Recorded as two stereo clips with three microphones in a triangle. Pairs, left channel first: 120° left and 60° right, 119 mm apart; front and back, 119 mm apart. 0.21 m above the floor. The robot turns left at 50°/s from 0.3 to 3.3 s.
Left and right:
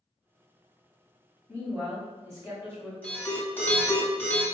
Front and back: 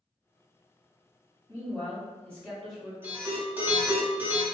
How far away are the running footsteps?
No running footsteps in this recording.